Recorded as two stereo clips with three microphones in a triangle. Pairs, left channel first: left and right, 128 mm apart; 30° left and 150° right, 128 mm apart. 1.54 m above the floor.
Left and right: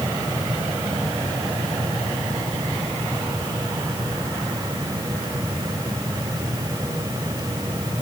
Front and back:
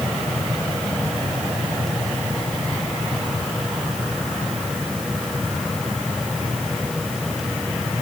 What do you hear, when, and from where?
Only background noise.